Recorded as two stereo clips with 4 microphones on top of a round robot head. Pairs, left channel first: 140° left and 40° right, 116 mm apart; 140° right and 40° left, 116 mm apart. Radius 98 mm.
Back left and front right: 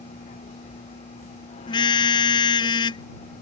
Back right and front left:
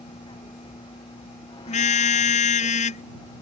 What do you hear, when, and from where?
0.0 s a vehicle: 170° left; by 3.4 s 165° left
1.7 s a car horn: 165° right